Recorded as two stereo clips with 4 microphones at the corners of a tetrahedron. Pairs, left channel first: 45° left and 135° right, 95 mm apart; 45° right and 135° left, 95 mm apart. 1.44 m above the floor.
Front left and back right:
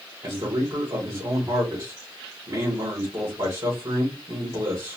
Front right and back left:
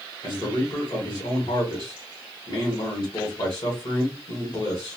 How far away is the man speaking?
About 1.4 m.